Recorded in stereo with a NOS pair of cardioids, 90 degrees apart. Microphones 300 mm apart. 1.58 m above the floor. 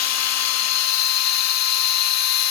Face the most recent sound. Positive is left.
turn(degrees=60)